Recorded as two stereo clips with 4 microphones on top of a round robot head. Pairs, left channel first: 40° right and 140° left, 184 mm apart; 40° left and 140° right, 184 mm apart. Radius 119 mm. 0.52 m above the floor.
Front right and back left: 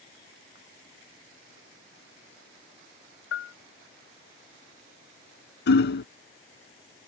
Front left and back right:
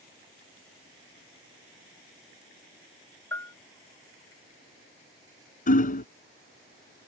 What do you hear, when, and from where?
3.3 s a bell: 35° right
5.7 s hammering: 10° right